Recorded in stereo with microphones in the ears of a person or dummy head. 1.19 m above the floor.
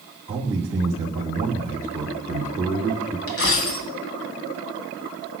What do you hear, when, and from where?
0.3 s a man speaking: 10° right (ahead or behind), 2.5 m
3.3 s a dropped coin: 70° left (ahead or behind), 2.5 m